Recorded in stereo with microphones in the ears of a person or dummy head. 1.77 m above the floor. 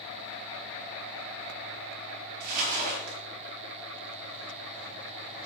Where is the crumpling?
50° right (ahead or behind), 4.5 m.